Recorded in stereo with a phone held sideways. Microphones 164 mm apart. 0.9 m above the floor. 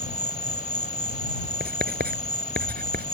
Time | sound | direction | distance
0.0 | an insect | 45° left (ahead or behind) | ?
1.6 | writing | 75° right (ahead or behind) | ?